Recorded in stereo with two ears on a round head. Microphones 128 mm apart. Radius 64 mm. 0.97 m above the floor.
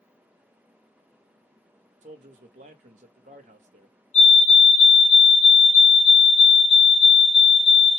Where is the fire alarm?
50° left (ahead or behind), 2.5 m.